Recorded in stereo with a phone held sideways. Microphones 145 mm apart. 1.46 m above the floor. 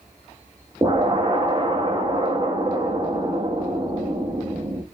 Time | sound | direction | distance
0.8 | an explosion | 30° right (ahead or behind) | 0.9 m